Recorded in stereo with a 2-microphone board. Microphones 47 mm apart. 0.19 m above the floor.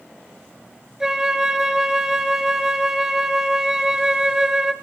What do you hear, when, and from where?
1.0 s a flute: 10° right (ahead or behind), 1.5 m